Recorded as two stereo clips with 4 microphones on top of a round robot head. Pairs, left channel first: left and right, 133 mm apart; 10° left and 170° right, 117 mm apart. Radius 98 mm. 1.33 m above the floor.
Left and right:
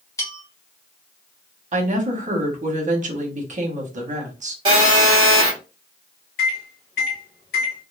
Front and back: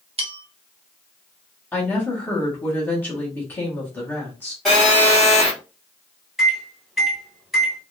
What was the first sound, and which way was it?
A bell, 160° left.